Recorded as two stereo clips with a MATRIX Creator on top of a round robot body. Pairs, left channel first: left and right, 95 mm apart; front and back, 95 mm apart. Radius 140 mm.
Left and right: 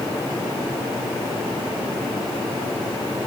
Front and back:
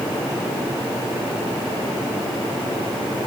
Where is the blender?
I don't hear a blender.